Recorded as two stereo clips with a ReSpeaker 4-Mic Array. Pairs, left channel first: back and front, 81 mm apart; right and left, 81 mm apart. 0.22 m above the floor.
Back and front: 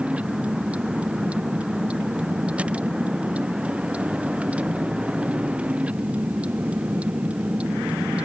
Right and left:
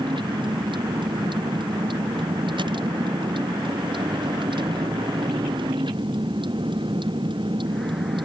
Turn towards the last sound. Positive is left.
turn(degrees=75)